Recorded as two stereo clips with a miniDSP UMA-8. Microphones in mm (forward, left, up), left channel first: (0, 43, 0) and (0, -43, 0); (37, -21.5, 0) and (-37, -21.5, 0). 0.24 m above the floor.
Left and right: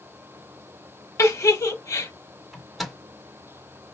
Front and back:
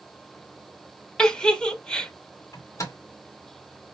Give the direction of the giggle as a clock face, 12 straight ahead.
10 o'clock.